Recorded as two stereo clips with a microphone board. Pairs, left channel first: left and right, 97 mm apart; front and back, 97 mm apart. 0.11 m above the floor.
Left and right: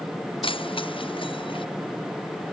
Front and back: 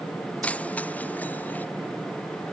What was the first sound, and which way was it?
Keys jangling, 75° left.